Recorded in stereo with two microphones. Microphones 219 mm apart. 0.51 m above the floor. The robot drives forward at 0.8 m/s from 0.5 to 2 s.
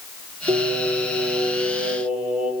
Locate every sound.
0.5 s singing: 35° right (ahead or behind), 7 m; by 2.5 s 40° right (ahead or behind), 6 m